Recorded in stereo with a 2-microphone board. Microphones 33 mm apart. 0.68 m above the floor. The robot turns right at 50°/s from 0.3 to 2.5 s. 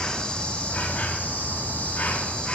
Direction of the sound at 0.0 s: 30° left.